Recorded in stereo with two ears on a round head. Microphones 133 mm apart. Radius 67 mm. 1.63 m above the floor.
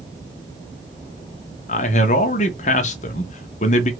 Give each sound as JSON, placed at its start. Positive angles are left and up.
{"t": 1.7, "sound": "a man speaking", "side_deg": 50, "distance_m": 0.6}